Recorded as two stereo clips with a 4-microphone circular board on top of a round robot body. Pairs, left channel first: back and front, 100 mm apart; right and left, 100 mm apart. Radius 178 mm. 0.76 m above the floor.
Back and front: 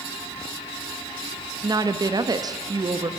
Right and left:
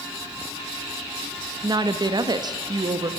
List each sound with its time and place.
1.6 s a woman speaking: 45° left, 1.3 m